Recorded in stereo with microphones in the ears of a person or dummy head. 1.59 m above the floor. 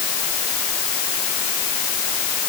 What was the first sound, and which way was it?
Only background noise.